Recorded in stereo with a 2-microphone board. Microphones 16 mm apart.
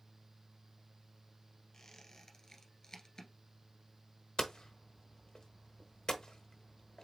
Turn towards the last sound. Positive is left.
turn(degrees=50)  # may be behind; listen again after turning